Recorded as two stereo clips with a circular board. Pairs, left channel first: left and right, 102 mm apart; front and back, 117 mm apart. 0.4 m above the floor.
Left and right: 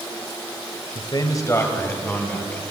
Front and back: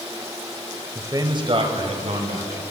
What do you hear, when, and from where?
0.9 s a man speaking: 115° left, 1.4 m; by 2.6 s 170° left, 3 m